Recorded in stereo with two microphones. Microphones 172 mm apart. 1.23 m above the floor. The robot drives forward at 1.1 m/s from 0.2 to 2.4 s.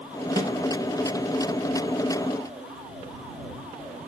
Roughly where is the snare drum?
Right.